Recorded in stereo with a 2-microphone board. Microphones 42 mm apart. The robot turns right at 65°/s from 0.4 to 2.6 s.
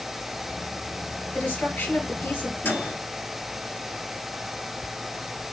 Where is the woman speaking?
50° left, 4 m; by 2.5 s 130° left, 4 m.